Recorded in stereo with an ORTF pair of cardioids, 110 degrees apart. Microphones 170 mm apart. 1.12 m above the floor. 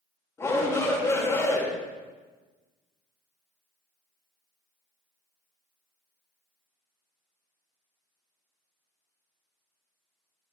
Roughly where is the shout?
Ahead.